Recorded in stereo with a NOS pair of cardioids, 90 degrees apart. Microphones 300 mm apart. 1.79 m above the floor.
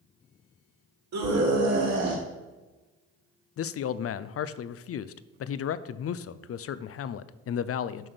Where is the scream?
65° right, 3.5 m; by 2.2 s 60° right, 3 m.